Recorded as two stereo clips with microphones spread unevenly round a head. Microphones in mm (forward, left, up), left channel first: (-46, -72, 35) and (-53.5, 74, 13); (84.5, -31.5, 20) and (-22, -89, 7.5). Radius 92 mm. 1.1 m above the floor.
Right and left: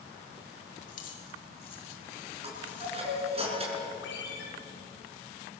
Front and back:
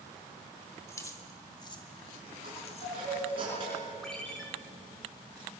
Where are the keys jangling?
40° right, 3 m; by 3.0 s straight ahead, 3 m.